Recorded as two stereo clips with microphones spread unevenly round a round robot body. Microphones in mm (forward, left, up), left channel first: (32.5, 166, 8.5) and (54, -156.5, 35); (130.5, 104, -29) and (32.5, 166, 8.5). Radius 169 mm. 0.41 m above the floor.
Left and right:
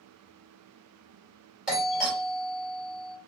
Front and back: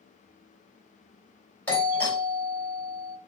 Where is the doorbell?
10° left, 2 m.